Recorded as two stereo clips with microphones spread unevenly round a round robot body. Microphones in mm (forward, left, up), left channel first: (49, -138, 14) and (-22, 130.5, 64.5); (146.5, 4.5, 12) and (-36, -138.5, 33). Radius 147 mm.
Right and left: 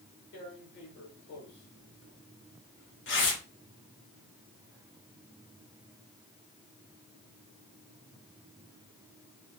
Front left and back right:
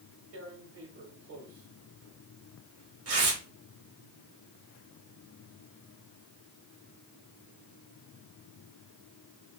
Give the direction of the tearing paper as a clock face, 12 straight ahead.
4 o'clock.